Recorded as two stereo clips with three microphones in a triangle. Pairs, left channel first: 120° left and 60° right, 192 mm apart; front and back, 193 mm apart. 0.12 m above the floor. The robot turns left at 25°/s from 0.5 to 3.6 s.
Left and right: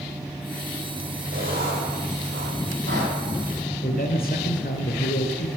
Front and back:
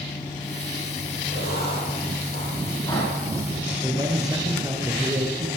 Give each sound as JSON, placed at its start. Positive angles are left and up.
{"t": 1.3, "sound": "writing", "azimuth_deg": -25, "distance_m": 5.0}
{"t": 3.8, "sound": "a man speaking", "azimuth_deg": 115, "distance_m": 1.8}